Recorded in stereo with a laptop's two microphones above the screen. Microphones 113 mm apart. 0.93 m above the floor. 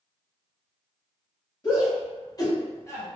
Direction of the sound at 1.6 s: 40° left (ahead or behind).